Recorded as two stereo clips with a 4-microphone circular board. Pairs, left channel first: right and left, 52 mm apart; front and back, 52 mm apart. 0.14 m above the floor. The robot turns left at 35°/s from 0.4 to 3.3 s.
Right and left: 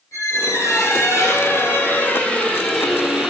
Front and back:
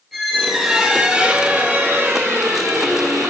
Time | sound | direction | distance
0.1 | a squeak | 90° right | 1.7 m